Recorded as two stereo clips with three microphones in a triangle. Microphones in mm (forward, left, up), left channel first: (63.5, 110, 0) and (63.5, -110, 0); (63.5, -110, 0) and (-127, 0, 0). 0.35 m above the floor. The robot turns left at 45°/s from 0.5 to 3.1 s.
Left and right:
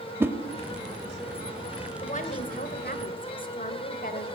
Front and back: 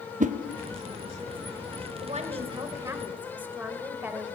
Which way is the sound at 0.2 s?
165° right.